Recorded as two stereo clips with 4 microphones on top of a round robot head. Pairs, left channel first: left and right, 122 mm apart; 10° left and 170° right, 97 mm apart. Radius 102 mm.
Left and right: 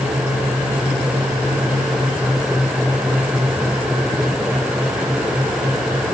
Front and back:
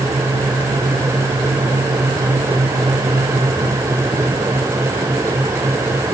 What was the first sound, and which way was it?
Only background noise.